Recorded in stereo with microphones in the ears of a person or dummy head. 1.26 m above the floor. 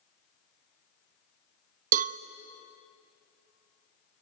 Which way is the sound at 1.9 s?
45° right (ahead or behind).